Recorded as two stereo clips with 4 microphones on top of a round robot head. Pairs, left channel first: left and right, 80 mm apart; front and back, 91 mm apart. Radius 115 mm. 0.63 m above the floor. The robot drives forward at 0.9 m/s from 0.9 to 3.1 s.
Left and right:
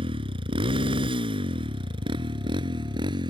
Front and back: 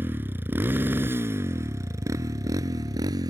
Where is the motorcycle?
105° right; by 3.3 s 125° right.